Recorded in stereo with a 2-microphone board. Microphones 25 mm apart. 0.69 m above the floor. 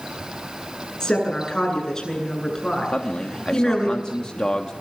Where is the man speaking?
35° left (ahead or behind), 1.3 m.